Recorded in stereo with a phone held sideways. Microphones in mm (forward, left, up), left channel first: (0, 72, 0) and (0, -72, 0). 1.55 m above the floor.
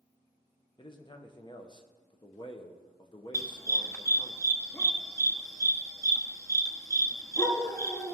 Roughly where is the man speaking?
Left.